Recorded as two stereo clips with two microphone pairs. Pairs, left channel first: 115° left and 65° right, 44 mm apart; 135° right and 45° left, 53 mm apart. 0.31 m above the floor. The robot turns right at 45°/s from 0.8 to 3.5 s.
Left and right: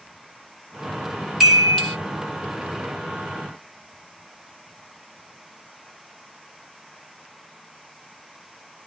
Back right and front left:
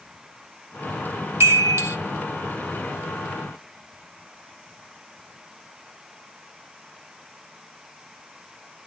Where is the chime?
20° left, 1.8 m; by 2.0 s 45° left, 1.8 m.